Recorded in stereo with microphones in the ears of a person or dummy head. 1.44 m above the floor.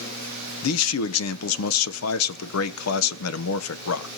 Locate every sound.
0.6 s a man speaking: 85° left, 0.9 m